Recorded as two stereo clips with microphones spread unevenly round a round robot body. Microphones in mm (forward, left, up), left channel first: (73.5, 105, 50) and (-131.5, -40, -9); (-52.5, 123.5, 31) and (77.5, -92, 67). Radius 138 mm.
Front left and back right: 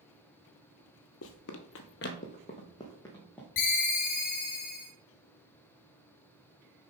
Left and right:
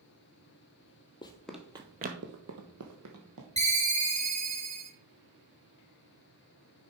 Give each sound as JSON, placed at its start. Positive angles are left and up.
{"t": 1.2, "sound": "running footsteps", "azimuth_deg": 45, "distance_m": 0.9}
{"t": 3.6, "sound": "a ringtone", "azimuth_deg": 5, "distance_m": 1.7}